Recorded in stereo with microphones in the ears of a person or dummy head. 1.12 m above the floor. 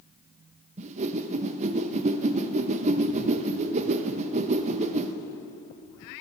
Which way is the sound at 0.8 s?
35° right (ahead or behind).